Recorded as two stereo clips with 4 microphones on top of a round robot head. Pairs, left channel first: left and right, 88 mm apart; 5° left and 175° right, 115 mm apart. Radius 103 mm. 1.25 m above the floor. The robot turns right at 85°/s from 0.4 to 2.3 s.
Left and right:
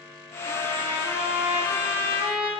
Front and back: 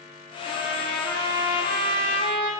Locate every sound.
0.5 s a trumpet: 130° left, 3 m; by 2.5 s 75° right, 3 m